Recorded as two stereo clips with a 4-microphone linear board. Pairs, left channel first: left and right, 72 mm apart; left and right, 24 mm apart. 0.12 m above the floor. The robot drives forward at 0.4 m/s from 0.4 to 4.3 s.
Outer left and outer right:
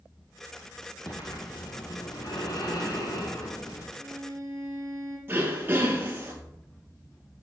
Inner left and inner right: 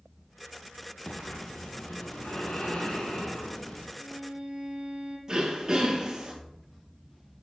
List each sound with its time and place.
1.1 s breathing: 65° left (ahead or behind), 2 m; by 3.9 s 50° left (ahead or behind), 2.5 m
4.0 s a violin: 45° right (ahead or behind), 1.5 m; by 5.2 s 40° right (ahead or behind), 1.6 m
5.3 s throat clearing: 30° right (ahead or behind), 2.0 m